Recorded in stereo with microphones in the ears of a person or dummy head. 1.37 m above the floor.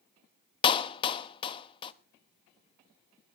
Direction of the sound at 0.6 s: 30° left (ahead or behind).